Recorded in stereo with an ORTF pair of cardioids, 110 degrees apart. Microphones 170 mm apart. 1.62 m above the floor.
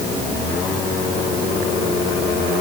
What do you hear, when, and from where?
Only background noise.